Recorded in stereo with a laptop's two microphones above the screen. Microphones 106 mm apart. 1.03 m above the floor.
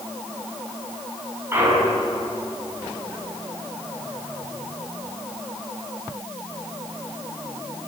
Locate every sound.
1.5 s a clunk: 20° right (ahead or behind), 5.5 m